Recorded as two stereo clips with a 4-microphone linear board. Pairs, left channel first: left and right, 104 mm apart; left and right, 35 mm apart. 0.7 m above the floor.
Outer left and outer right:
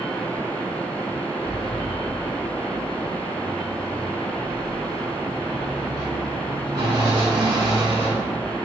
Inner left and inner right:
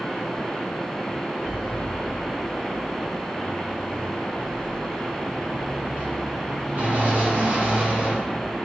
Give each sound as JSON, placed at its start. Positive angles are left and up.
{"t": 1.4, "sound": "a sliding door", "side_deg": -40, "distance_m": 1.7}